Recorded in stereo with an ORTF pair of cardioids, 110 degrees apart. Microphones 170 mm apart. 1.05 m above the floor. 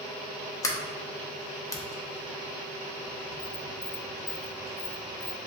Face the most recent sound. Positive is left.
turn(degrees=20)